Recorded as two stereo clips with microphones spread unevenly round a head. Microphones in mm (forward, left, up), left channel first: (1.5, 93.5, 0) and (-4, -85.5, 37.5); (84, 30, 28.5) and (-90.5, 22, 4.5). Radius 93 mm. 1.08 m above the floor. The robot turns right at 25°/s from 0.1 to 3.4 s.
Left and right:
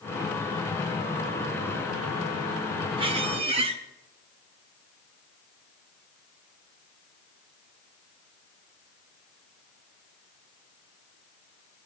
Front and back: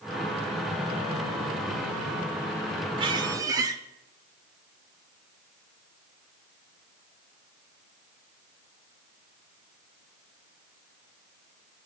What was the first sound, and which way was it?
A squeak, 115° right.